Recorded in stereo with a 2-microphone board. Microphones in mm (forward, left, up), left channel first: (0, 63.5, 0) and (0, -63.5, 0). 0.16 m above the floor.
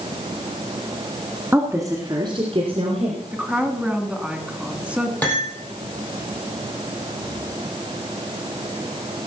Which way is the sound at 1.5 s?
15° right (ahead or behind).